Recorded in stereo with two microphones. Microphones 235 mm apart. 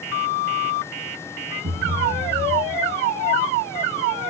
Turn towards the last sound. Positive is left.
turn(degrees=-50)  # may be behind; listen again after turning